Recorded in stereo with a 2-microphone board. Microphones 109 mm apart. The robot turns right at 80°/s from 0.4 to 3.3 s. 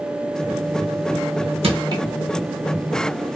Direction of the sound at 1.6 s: 60° right (ahead or behind).